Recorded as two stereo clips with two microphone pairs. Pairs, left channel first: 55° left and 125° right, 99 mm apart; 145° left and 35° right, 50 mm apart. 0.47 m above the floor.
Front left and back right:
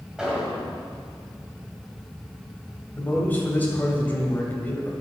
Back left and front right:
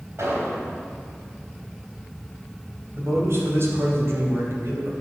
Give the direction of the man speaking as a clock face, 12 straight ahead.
1 o'clock.